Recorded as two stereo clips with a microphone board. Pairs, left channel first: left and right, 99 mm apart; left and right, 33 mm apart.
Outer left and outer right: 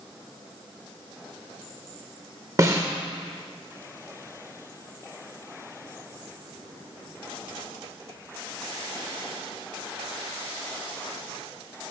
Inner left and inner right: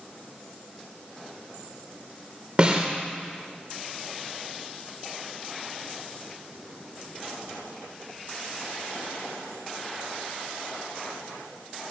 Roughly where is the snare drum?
Right.